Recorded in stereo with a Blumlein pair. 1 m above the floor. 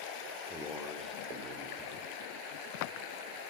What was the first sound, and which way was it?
A man speaking, 5° left.